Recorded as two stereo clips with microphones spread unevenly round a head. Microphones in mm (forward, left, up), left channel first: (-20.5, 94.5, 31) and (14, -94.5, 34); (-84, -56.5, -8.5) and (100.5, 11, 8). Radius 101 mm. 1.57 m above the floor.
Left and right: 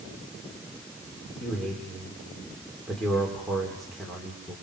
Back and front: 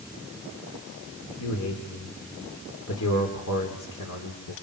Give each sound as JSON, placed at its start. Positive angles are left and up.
{"t": 1.4, "sound": "a man speaking", "azimuth_deg": -170, "distance_m": 4.5}